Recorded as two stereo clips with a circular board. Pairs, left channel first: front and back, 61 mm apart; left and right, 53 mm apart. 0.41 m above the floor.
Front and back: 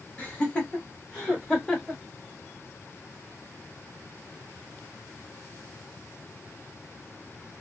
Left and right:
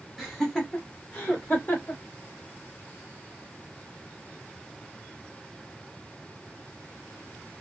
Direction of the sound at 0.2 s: 5° right.